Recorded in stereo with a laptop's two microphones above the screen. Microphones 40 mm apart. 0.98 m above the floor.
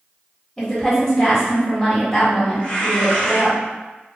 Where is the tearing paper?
20° left (ahead or behind), 1.1 m.